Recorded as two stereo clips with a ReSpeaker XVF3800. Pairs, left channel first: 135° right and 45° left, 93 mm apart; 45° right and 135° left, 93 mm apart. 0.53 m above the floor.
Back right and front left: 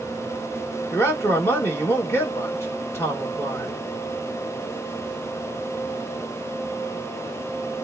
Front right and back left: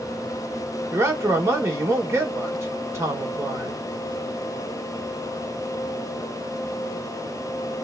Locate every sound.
0.9 s a man speaking: straight behind, 1.5 m